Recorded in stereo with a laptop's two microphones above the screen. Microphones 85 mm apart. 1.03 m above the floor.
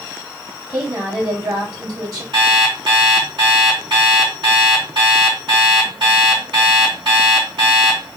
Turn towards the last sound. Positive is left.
turn(degrees=-85)